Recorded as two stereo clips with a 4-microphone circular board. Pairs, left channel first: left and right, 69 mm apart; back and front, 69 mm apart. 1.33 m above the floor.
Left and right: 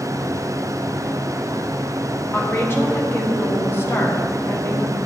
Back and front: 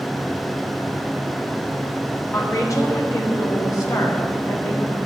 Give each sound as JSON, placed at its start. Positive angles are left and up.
{"t": 2.3, "sound": "a woman speaking", "azimuth_deg": 145, "distance_m": 1.0}